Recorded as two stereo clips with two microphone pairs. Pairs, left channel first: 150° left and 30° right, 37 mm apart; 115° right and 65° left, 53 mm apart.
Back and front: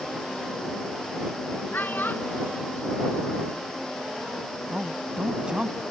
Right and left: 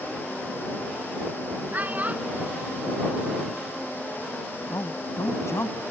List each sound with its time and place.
1.7 s a child speaking: 120° left; by 3.9 s 135° left
4.7 s a man speaking: 95° right